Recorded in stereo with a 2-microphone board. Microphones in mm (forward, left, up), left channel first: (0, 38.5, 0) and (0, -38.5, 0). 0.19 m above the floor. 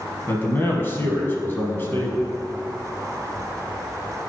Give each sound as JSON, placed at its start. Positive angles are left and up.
{"t": 0.3, "sound": "a man speaking", "side_deg": 30, "distance_m": 1.2}